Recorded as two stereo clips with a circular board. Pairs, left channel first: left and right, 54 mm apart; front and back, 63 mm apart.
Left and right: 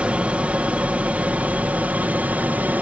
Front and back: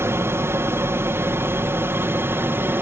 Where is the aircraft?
150° right; by 2.8 s 140° right.